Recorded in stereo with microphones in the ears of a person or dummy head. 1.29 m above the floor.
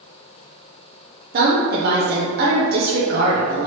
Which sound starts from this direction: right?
A woman speaking, at 1.3 s.